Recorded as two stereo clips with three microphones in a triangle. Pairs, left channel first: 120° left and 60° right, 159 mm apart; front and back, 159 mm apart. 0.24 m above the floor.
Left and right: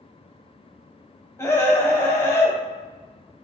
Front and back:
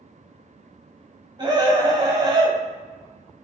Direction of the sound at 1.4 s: 170° left.